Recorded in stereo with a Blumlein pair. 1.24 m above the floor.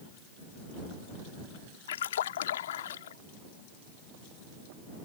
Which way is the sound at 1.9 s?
60° left.